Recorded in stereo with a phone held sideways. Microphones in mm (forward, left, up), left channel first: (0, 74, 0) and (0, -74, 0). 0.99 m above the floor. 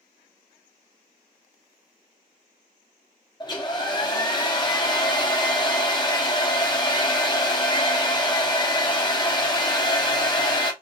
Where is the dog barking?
No dog barking in this recording.